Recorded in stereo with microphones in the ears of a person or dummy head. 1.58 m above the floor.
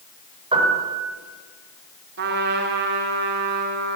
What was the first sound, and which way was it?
A piano, 25° right (ahead or behind).